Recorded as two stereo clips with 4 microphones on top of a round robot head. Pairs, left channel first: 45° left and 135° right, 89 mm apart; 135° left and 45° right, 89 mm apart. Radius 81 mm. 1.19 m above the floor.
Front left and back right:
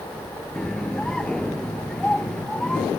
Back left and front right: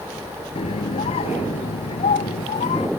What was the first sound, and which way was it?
A scream, 125° left.